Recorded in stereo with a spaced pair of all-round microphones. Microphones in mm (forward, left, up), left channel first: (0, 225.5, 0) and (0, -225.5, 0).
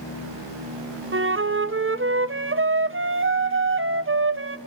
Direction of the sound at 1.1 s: 30° right (ahead or behind).